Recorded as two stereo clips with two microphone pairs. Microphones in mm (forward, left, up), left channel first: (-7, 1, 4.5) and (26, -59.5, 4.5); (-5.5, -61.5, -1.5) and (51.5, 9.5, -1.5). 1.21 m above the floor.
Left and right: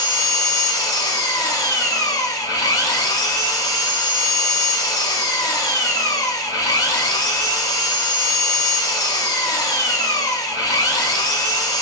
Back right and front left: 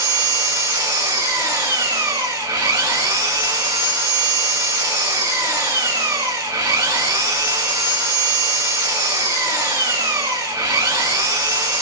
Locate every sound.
0.0 s an engine running: 95° left, 2 m